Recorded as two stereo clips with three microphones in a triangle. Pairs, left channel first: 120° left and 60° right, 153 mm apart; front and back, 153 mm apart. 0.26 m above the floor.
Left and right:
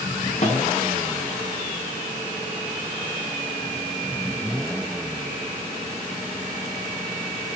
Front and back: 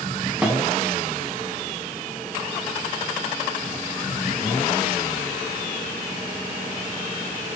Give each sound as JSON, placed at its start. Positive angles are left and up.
{"t": 0.4, "sound": "a snare drum", "azimuth_deg": 100, "distance_m": 1.7}